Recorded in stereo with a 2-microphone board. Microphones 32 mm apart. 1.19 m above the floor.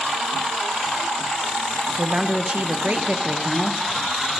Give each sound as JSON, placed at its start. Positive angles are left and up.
{"t": 2.0, "sound": "a woman speaking", "side_deg": -40, "distance_m": 1.3}